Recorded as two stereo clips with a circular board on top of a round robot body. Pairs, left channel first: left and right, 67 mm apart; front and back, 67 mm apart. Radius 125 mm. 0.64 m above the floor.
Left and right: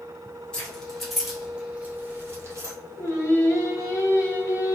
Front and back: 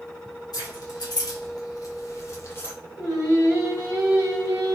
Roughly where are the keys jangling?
Ahead.